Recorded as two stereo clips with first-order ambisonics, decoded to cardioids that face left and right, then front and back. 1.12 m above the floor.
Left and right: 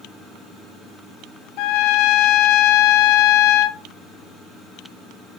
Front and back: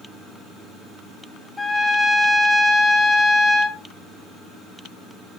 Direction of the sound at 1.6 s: 80° left.